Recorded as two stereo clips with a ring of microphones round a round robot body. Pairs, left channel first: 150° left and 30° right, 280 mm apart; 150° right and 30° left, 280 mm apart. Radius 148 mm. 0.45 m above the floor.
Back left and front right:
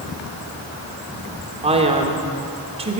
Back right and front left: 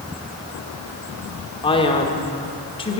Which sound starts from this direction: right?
A man speaking, at 1.6 s.